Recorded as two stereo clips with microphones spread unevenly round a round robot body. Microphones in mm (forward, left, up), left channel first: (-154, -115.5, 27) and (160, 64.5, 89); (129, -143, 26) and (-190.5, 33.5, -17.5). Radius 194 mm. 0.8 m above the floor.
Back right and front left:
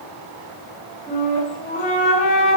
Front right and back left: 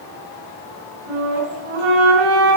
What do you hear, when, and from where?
1.1 s a flute: 135° left, 4.5 m